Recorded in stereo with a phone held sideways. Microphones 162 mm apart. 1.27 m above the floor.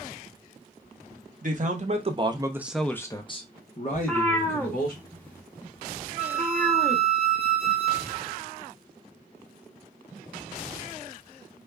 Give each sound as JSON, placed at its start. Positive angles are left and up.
{"t": 1.4, "sound": "a man speaking", "side_deg": -55, "distance_m": 1.0}
{"t": 3.9, "sound": "a cat meowing", "side_deg": 10, "distance_m": 0.9}
{"t": 6.2, "sound": "a flute", "side_deg": 75, "distance_m": 2.0}